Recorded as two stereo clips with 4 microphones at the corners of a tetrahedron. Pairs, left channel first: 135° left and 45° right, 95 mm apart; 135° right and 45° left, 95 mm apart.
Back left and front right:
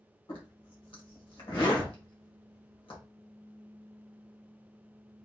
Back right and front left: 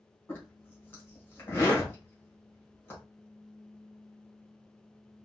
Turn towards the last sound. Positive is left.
turn(degrees=160)